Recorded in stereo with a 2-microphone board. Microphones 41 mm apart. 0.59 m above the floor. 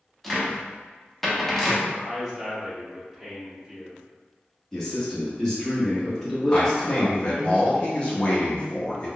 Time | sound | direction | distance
0.2 | a cupboard door | 5° left (ahead or behind) | 0.7 m
1.9 | a man speaking | 5° right (ahead or behind) | 1.2 m
4.7 | a man speaking | 15° left (ahead or behind) | 1.0 m
6.5 | a man speaking | 30° left (ahead or behind) | 0.8 m